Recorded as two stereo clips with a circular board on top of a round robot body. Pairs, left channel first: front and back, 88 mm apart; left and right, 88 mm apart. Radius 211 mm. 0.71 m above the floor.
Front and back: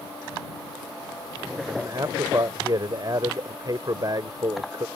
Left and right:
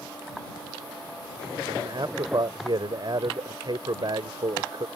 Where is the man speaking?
130° right.